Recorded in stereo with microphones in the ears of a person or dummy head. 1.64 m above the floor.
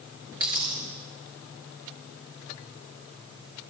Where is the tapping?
No tapping in this recording.